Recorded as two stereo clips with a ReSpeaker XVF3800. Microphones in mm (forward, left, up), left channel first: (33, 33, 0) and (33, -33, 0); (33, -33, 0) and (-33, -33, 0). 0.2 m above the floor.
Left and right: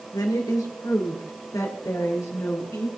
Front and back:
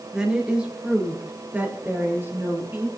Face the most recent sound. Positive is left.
turn(degrees=125)